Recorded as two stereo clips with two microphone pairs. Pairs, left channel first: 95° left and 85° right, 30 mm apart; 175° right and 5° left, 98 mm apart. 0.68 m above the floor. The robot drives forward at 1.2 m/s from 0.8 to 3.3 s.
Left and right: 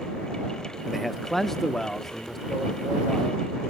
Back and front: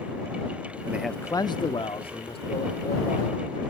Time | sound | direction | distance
0.9 | a man speaking | 15° left | 0.5 m